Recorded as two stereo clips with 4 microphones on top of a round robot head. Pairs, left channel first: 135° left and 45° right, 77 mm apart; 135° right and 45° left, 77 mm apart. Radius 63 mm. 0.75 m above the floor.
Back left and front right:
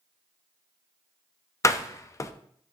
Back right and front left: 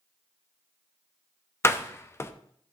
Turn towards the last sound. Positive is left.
turn(degrees=175)